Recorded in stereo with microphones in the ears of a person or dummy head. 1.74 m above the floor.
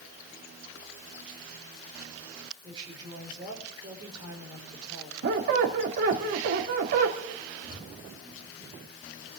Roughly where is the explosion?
Right.